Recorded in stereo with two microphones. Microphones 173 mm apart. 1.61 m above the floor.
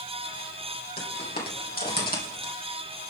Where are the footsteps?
65° left (ahead or behind), 4 m; by 2.5 s 55° left (ahead or behind), 3.5 m.